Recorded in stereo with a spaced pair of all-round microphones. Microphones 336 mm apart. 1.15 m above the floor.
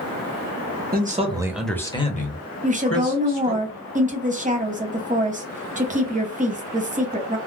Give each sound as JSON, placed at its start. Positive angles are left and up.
{"t": 0.9, "sound": "a man speaking", "side_deg": -25, "distance_m": 0.9}
{"t": 2.6, "sound": "a woman speaking", "side_deg": -20, "distance_m": 0.9}